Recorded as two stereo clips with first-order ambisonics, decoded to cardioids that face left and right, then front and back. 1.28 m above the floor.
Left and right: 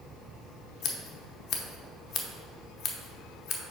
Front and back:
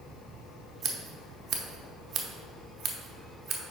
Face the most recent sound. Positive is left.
turn(degrees=125)